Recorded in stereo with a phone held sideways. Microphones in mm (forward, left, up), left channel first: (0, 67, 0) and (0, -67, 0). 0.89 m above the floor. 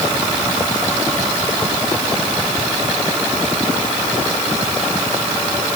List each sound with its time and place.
Only background noise.